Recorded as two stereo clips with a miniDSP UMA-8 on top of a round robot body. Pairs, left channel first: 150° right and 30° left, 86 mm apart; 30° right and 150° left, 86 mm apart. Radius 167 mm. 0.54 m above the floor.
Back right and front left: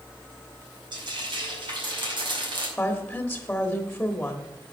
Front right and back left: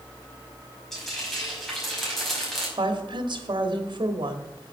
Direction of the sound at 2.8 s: 130° left.